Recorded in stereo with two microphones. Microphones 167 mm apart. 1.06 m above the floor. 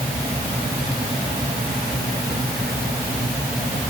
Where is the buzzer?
No buzzer in this recording.